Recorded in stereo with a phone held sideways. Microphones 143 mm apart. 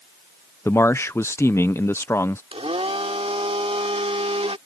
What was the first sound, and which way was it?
A man speaking, 20° left (ahead or behind).